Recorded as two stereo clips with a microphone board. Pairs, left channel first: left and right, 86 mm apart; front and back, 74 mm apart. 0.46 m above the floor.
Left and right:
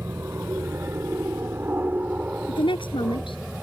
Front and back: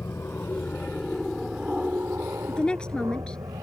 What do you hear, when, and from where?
0.0 s an aircraft: 40° right; by 3.6 s 175° right
2.5 s a woman speaking: 80° left